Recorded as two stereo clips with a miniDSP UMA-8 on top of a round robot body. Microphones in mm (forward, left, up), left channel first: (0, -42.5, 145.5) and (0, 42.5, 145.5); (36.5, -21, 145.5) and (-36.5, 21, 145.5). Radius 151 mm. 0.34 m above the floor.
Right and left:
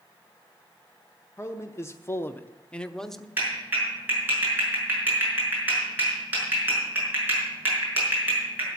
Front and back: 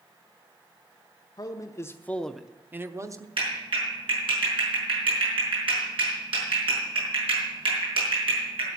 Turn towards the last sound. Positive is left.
turn(degrees=160)